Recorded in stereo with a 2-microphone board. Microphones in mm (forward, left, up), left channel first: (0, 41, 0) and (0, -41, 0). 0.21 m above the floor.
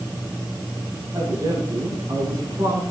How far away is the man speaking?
About 8.5 m.